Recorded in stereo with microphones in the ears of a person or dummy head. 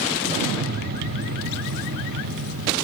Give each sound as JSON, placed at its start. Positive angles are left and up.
{"t": 0.3, "sound": "an explosion", "side_deg": -55, "distance_m": 0.6}